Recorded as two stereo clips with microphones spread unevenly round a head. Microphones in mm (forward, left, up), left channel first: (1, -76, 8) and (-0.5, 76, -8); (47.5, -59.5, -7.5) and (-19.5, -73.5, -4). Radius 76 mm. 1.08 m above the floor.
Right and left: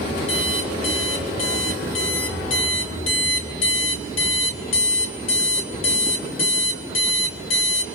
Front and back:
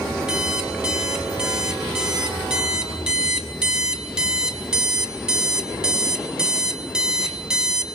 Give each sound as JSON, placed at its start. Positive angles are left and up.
{"t": 0.3, "sound": "an alarm clock", "azimuth_deg": -90, "distance_m": 3.0}